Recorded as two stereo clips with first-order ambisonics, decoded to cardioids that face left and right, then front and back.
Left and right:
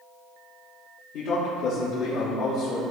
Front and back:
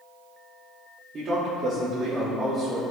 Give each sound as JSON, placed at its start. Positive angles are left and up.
{"t": 1.1, "sound": "a man speaking", "azimuth_deg": 115, "distance_m": 2.0}